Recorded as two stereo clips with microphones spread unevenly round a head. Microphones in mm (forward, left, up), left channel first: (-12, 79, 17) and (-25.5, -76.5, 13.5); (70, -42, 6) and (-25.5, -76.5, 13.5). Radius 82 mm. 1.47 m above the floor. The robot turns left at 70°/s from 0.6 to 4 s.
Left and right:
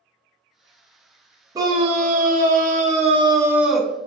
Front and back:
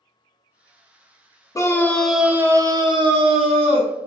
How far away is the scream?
About 0.5 m.